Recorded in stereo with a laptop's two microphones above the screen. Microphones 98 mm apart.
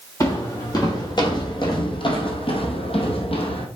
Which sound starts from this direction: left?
Footsteps, at 0.2 s.